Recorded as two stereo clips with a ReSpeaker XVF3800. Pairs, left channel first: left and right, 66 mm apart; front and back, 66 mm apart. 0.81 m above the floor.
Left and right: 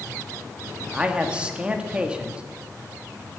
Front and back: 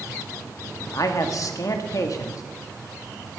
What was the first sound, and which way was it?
A man speaking, 20° right.